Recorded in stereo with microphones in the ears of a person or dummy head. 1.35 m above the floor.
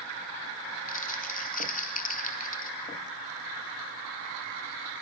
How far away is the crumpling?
About 1.4 m.